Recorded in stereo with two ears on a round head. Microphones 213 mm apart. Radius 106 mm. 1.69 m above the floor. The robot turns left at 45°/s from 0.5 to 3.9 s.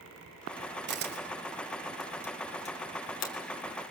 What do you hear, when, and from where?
0.9 s a camera shutter: 50° right (ahead or behind), 4 m; by 3.3 s 60° left (ahead or behind), 4 m